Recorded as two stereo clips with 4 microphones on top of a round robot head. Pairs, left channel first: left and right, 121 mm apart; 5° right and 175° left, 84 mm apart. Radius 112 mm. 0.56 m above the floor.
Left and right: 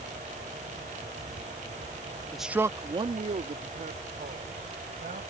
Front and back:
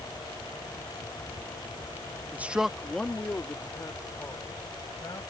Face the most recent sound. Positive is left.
turn(degrees=-65)